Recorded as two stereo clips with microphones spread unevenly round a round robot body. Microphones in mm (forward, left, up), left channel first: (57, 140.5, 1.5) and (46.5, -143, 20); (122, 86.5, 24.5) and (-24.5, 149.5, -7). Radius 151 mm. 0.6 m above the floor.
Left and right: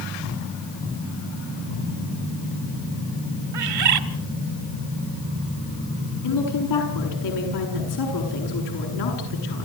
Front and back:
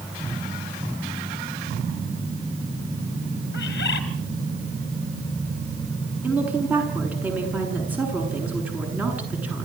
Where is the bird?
70° right, 1.9 m.